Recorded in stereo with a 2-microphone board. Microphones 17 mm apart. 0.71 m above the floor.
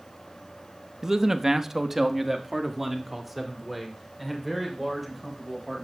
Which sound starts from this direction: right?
A man speaking, at 1.0 s.